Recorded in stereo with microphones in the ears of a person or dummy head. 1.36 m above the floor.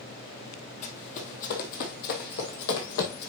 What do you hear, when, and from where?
0.8 s running footsteps: 40° left (ahead or behind), 2.5 m; by 3.3 s 60° left (ahead or behind), 3 m